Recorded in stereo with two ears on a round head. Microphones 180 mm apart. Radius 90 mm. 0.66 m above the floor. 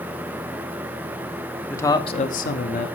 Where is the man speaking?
10° left (ahead or behind), 1.1 m; by 2.9 s 40° left (ahead or behind), 1.1 m.